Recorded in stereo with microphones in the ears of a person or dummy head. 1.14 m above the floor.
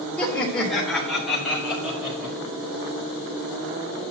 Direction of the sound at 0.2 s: 5° left (ahead or behind).